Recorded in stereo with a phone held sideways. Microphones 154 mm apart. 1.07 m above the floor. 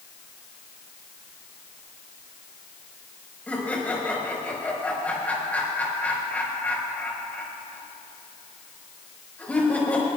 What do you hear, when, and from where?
3.5 s laughter: 10° left (ahead or behind), 5 m